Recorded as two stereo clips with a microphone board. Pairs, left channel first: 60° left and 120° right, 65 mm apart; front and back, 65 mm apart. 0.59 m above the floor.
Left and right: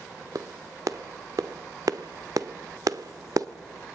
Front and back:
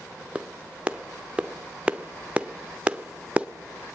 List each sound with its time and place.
0.3 s a clap: 110° right, 1.0 m